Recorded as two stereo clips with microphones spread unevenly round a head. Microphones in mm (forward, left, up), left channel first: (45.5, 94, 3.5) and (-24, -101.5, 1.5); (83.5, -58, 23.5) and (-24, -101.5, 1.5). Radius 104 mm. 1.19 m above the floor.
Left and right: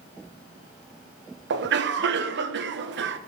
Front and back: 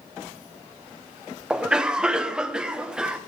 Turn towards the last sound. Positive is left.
turn(degrees=-80)